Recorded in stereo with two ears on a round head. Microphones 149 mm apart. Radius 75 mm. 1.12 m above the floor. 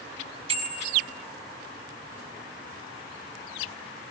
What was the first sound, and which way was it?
A bicycle bell, 35° right (ahead or behind).